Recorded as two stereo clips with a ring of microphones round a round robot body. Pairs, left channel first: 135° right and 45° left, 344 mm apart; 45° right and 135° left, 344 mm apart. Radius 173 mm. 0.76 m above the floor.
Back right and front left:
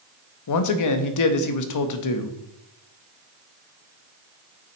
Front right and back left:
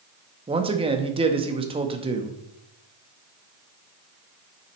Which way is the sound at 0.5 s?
155° right.